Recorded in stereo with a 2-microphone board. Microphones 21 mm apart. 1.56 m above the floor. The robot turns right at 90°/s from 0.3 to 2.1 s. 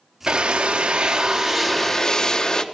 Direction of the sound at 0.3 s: 135° right.